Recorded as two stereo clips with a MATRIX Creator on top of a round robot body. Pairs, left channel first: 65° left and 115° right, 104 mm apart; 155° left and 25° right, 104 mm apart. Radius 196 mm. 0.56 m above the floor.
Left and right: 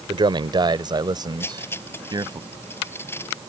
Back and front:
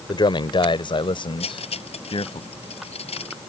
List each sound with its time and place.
0.1 s a man speaking: 155° right; by 2.4 s 165° right
1.4 s cutlery clinking: 135° left